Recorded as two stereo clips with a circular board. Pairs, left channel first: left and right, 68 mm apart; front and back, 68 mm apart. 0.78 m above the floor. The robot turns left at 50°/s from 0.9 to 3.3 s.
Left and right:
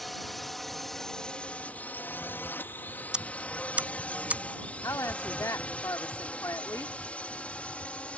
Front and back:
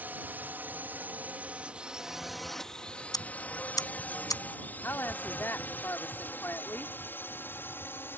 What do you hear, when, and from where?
0.0 s a drone: 175° left; by 8.2 s 30° left
3.1 s ticking: 15° right; by 4.4 s 25° right
4.8 s a woman speaking: 55° left